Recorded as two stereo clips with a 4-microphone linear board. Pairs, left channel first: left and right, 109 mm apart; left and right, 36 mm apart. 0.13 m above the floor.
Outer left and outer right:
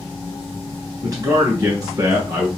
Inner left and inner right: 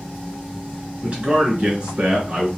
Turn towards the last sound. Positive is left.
turn(degrees=-35)  # may be behind; listen again after turning